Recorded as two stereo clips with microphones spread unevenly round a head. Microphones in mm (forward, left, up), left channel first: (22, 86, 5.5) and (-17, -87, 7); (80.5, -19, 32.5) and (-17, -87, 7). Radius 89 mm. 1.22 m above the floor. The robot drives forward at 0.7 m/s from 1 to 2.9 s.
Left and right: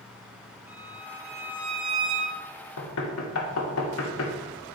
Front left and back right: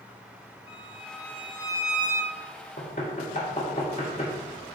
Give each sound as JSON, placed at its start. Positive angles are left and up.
{"t": 0.7, "sound": "a violin", "azimuth_deg": -25, "distance_m": 2.5}
{"t": 2.8, "sound": "knocking", "azimuth_deg": 80, "distance_m": 1.0}